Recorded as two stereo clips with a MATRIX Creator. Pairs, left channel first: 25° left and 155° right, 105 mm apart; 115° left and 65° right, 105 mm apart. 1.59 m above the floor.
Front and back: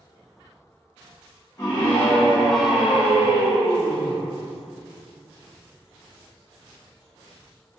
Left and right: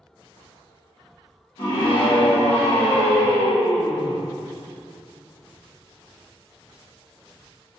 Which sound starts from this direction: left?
A scream, at 1.6 s.